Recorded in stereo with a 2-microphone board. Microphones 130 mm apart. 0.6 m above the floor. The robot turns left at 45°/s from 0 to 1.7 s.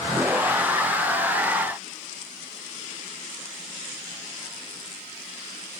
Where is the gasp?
I don't hear a gasp.